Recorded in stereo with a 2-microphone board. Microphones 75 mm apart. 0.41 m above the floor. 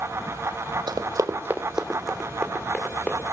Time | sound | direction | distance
0.9 | running footsteps | 70° right (ahead or behind) | 1.0 m